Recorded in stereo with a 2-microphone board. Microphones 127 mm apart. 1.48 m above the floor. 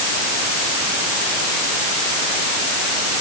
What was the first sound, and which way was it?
Only background noise.